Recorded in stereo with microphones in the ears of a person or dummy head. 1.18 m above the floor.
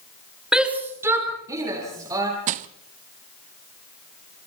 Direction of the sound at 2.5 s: 45° right (ahead or behind).